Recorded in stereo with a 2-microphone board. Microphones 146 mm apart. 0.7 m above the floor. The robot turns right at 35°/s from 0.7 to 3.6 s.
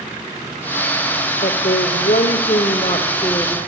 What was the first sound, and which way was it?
A woman speaking, 80° left.